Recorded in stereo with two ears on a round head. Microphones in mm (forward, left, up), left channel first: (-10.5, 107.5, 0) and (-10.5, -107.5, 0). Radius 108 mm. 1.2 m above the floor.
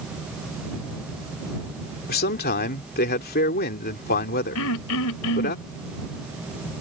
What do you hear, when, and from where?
2.1 s a man speaking: 40° left (ahead or behind)
4.5 s throat clearing: 65° left (ahead or behind)